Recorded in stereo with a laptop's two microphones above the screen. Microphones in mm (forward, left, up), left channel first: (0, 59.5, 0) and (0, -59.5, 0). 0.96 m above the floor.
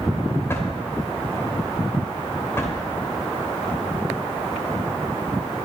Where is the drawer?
20° left (ahead or behind), 2 m.